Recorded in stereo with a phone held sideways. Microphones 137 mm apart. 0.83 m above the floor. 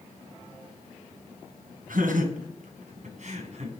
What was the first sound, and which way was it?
Laughter, 75° right (ahead or behind).